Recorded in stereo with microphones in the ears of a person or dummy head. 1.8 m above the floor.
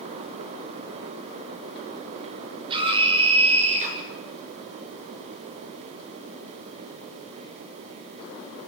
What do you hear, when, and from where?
2.7 s a scream: 30° right (ahead or behind), 8 m; by 4.0 s 40° right (ahead or behind), 9 m